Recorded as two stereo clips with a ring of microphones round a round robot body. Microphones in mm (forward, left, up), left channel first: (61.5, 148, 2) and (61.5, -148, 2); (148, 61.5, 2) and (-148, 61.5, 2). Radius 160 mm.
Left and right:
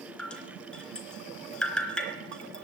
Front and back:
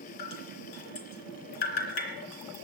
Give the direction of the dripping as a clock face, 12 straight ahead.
12 o'clock.